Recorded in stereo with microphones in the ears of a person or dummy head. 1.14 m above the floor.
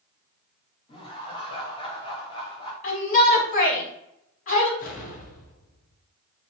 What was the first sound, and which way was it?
Laughter, 20° left (ahead or behind).